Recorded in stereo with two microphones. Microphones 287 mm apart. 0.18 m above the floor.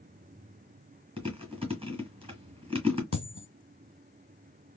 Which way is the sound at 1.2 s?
20° right (ahead or behind).